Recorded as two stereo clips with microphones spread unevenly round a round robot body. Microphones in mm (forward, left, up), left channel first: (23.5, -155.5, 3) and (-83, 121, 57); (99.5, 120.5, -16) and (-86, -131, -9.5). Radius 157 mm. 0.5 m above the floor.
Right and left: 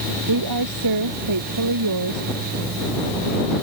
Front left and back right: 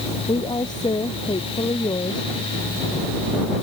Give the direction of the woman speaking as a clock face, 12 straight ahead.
8 o'clock.